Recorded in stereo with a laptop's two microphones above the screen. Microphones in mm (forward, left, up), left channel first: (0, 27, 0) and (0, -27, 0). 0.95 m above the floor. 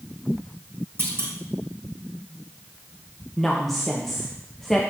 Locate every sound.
1.0 s a clunk: 55° right (ahead or behind), 2.0 m
3.4 s a woman speaking: 5° left (ahead or behind), 0.6 m